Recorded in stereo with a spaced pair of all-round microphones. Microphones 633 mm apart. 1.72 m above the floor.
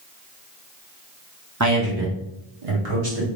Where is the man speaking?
25° right (ahead or behind), 0.9 m; by 3.3 s 65° right (ahead or behind), 1.5 m.